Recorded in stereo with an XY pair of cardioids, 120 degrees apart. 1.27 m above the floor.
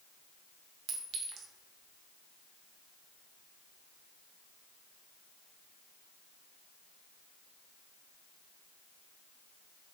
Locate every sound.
0.9 s a clink: 60° right, 0.7 m